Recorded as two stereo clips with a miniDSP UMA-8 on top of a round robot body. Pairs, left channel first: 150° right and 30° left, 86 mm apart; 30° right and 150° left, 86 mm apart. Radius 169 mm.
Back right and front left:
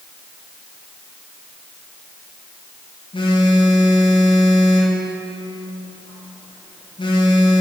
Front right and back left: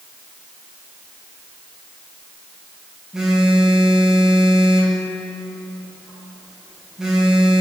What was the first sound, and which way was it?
A phone buzzing, 125° right.